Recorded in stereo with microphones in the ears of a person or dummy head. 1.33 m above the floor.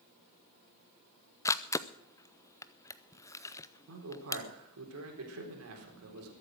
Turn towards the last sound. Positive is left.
turn(degrees=-85)